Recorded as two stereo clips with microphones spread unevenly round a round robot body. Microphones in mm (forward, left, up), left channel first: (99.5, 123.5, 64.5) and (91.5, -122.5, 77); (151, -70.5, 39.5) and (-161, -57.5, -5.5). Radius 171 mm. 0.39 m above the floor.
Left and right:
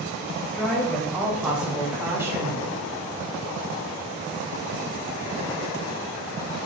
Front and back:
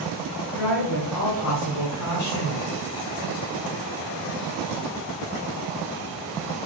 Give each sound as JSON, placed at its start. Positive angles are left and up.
{"t": 0.5, "sound": "a woman speaking", "azimuth_deg": 5, "distance_m": 3.0}